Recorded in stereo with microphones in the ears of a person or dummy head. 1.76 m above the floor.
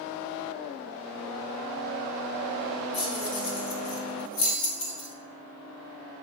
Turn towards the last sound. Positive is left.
turn(degrees=60)  # may be behind; listen again after turning